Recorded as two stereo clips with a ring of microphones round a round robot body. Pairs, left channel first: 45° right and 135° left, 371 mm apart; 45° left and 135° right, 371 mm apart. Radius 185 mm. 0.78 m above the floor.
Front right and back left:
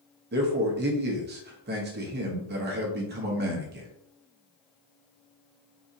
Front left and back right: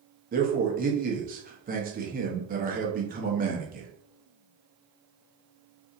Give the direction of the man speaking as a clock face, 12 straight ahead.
6 o'clock.